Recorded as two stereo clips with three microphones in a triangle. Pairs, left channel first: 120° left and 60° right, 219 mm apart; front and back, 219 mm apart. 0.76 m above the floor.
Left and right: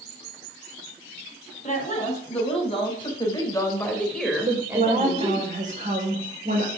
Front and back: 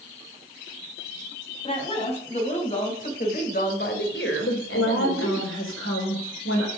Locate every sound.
1.6 s a woman speaking: 65° left, 5.5 m; by 5.5 s straight ahead, 3 m
4.5 s a woman speaking: 10° right, 3.5 m